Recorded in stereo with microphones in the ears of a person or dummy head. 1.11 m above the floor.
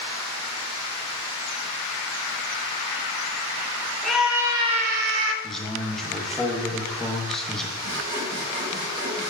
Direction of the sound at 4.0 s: 5° left (ahead or behind).